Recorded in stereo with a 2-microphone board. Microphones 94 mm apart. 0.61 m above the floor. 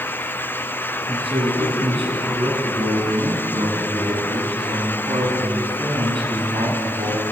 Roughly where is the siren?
No siren in this recording.